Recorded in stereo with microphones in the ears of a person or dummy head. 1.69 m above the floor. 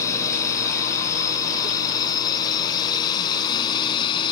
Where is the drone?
20° left (ahead or behind); by 4.3 s 30° left (ahead or behind).